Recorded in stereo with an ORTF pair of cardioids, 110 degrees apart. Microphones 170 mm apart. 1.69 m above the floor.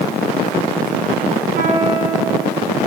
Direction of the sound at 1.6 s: 55° right.